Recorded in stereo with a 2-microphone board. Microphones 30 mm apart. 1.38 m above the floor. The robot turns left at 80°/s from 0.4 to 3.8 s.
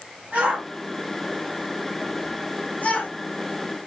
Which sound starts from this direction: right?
A shout, at 0.3 s.